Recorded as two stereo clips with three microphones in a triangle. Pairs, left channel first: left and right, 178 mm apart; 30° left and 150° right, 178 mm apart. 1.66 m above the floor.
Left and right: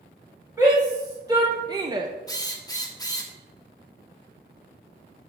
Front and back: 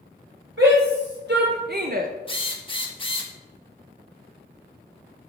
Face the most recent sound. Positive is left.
turn(degrees=45)